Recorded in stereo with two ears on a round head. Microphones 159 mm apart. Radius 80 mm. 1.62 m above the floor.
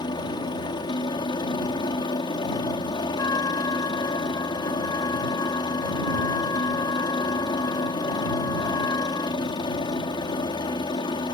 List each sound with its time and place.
0.0 s a helicopter: 25° left (ahead or behind)
3.2 s a trumpet: 20° left (ahead or behind)